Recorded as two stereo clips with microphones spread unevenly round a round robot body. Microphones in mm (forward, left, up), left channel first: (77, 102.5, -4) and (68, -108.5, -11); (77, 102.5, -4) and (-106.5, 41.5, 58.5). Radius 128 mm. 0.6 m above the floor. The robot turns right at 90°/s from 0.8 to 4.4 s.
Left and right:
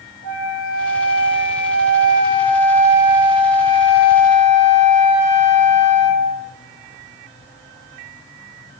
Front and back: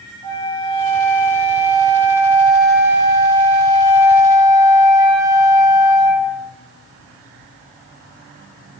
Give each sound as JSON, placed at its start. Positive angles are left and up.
{"t": 0.2, "sound": "a flute", "azimuth_deg": 65, "distance_m": 0.9}